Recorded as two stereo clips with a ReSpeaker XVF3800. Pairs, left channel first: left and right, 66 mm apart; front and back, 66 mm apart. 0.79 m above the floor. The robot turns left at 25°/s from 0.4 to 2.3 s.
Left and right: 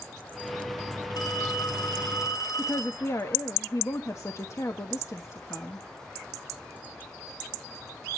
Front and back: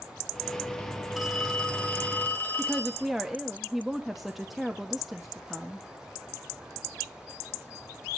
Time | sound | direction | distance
1.2 | a phone ringing | 90° left | 2.5 m
2.6 | a woman speaking | 95° left | 1.0 m